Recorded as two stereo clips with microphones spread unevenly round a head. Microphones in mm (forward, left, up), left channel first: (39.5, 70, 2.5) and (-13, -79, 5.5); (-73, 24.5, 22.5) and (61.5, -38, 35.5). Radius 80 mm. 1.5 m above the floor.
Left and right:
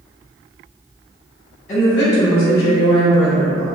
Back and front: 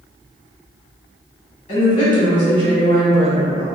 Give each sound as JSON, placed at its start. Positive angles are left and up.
{"t": 1.7, "sound": "a woman speaking", "azimuth_deg": 120, "distance_m": 1.5}